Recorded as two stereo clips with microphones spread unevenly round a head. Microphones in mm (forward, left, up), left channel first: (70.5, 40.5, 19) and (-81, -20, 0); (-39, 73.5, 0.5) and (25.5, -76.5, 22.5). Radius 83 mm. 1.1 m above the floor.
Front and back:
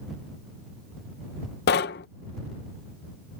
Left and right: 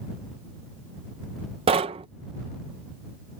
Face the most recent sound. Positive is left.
turn(degrees=-5)